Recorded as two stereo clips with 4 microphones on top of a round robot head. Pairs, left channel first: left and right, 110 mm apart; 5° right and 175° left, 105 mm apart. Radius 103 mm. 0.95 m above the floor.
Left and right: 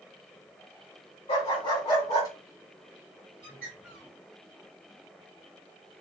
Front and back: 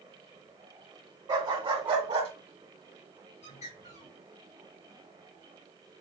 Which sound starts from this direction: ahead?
A bird, at 3.4 s.